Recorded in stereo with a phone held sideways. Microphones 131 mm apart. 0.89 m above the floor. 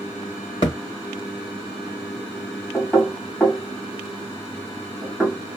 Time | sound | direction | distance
0.6 | a thud | 50° left (ahead or behind) | 1.3 m
2.7 | knocking | centre (ahead or behind) | 1.7 m